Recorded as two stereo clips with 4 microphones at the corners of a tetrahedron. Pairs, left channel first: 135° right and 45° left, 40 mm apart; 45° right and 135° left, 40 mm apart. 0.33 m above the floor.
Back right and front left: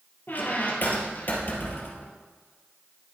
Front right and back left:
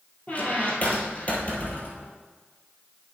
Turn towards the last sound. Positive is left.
turn(degrees=-95)